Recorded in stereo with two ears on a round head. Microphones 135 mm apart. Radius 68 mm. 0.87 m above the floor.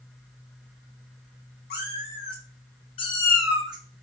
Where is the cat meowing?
70° left (ahead or behind), 1.6 m; by 4.0 s 45° right (ahead or behind), 0.8 m.